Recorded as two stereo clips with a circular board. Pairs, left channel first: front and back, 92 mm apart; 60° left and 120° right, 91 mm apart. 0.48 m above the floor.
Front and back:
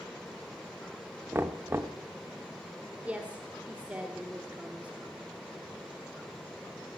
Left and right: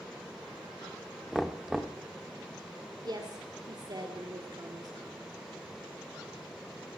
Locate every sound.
1.3 s knocking: 150° left, 0.8 m
3.0 s a woman speaking: 110° right, 1.5 m